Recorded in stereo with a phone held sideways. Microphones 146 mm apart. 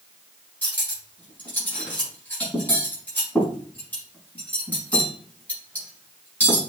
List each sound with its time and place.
0.6 s cutlery clinking: 10° left (ahead or behind), 4.5 m